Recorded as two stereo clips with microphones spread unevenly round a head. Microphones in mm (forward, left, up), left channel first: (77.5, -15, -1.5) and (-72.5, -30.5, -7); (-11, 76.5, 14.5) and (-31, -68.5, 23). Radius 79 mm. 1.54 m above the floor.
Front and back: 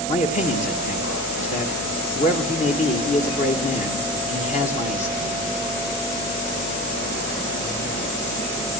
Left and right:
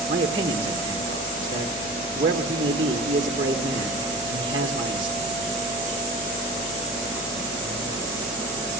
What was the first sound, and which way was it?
A man speaking, 35° right.